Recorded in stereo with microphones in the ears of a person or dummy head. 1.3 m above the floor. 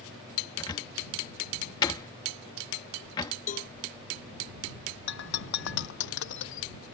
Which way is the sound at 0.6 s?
25° left (ahead or behind).